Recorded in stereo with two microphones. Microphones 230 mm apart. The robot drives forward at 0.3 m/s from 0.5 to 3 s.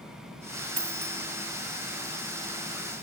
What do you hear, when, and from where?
0.8 s a dropped coin: 85° right, 0.5 m; by 1.2 s 75° right (ahead or behind), 0.5 m